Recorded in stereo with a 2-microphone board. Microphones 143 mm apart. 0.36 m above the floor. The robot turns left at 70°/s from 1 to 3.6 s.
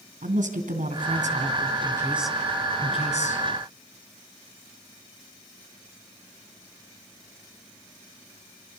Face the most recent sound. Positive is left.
turn(degrees=90)